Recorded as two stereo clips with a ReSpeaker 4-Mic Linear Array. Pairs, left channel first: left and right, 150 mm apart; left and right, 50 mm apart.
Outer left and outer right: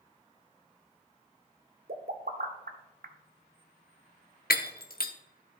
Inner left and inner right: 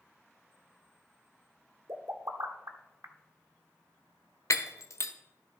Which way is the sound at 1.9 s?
80° right.